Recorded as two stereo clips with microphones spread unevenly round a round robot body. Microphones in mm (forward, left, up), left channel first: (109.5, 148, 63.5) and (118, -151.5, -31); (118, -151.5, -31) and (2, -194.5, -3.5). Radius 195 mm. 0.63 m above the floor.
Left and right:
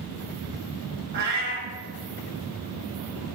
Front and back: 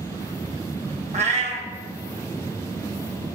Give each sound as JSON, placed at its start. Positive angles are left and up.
{"t": 1.1, "sound": "a cat meowing", "azimuth_deg": -160, "distance_m": 0.7}